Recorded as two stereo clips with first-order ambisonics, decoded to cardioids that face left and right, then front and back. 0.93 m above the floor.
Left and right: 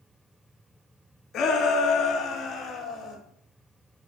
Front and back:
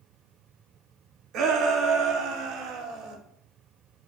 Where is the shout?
145° left, 1.9 m; by 3.2 s 160° left, 3.5 m.